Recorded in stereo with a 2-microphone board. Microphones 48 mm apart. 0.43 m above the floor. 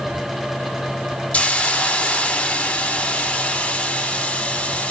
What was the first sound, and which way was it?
A hiss, 30° left (ahead or behind).